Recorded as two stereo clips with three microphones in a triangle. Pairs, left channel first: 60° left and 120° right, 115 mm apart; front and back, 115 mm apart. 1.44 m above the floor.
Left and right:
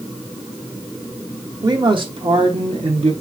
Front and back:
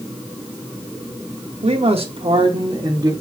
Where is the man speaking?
170° right, 0.9 m; by 3.1 s 125° right, 1.2 m.